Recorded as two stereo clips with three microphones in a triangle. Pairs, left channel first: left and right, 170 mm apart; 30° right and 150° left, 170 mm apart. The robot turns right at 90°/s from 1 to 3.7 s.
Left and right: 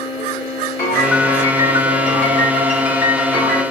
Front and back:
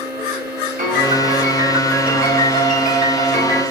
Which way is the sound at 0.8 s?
160° left.